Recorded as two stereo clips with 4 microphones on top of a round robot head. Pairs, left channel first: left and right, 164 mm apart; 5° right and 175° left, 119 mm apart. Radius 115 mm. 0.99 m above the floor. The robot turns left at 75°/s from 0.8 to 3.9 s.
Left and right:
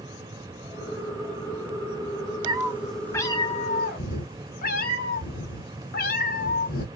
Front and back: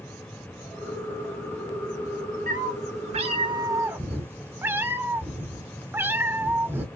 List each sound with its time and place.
2.5 s a cat meowing: 145° right, 1.3 m; by 6.8 s 105° left, 1.3 m